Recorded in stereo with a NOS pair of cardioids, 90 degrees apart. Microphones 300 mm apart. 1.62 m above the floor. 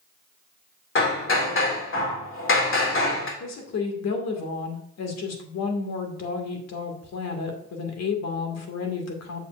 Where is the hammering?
45° left, 2.5 m.